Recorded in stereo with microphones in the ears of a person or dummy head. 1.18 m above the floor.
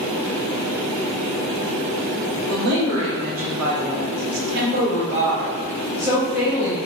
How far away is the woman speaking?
About 1.7 m.